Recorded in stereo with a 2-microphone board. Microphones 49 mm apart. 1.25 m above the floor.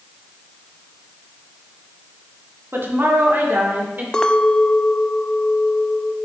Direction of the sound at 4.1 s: 15° left (ahead or behind).